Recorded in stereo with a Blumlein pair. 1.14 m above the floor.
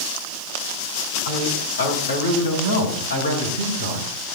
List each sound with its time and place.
1.2 s a man speaking: 70° left, 6.5 m; by 4.1 s 80° left, 5 m